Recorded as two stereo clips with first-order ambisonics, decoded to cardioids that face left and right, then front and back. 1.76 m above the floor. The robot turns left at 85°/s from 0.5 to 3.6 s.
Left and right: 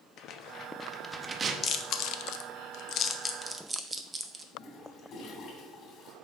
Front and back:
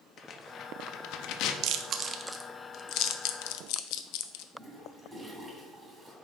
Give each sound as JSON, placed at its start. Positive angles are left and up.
{"t": 0.2, "sound": "tearing paper", "azimuth_deg": 60, "distance_m": 0.7}
{"t": 1.6, "sound": "chewing", "azimuth_deg": 155, "distance_m": 0.6}
{"t": 4.5, "sound": "a toilet flushing", "azimuth_deg": 120, "distance_m": 1.8}